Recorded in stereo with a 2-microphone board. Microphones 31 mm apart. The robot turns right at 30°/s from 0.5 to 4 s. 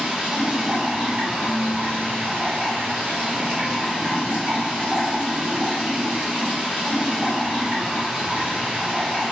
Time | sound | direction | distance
0.0 | running water | 140° right | 1.6 m
1.4 | dishes clattering | 85° left | 0.8 m